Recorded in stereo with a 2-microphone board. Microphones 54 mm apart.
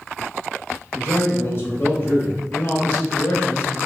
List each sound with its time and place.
0.9 s a man speaking: 40° left (ahead or behind), 1.8 m